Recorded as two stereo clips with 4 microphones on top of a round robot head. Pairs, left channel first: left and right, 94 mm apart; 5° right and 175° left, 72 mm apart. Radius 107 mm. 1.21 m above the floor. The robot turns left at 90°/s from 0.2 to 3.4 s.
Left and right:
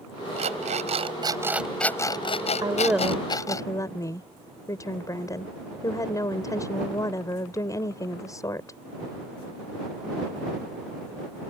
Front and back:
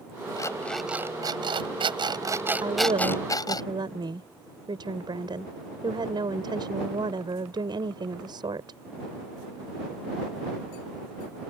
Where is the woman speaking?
140° right; by 8.8 s 150° left.